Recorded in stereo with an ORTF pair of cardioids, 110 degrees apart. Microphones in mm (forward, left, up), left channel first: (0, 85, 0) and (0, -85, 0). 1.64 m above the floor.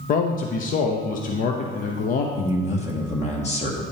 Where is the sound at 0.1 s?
55° left, 0.8 m.